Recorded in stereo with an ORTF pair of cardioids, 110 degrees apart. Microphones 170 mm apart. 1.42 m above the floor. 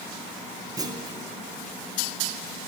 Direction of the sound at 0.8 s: 20° right.